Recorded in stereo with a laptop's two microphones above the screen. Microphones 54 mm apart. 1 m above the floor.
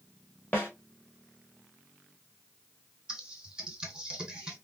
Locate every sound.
0.5 s a snare drum: 30° left (ahead or behind), 1.3 m
3.1 s typing on a keyboard: 15° right (ahead or behind), 1.9 m